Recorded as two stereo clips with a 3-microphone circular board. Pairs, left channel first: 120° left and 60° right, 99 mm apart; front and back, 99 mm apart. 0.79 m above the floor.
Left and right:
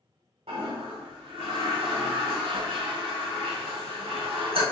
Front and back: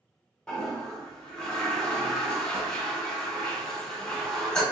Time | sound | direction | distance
0.5 | a toilet flushing | 80° right | 1.5 m